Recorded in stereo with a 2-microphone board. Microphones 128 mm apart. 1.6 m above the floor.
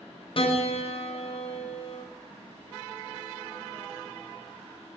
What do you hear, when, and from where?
0.4 s a piano: 50° left (ahead or behind), 1.1 m